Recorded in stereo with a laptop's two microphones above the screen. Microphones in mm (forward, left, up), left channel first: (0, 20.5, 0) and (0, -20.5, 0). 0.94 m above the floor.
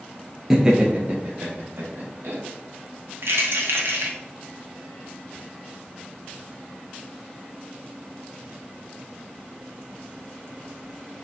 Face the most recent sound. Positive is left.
turn(degrees=-75)  # may be behind; listen again after turning